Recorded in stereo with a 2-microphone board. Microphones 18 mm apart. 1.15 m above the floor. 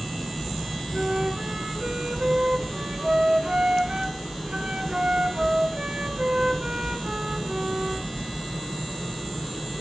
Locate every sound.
0.9 s a flute: 65° right (ahead or behind), 3 m